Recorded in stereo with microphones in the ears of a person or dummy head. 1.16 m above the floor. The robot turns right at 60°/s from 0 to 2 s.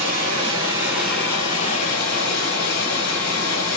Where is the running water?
65° right, 2.5 m; by 3.8 s 55° left, 2.5 m.